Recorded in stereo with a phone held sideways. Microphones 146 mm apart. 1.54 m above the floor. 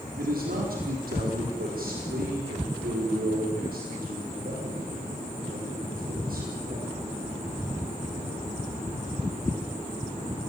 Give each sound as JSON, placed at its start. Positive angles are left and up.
{"t": 0.2, "sound": "a man speaking", "side_deg": -85, "distance_m": 4.5}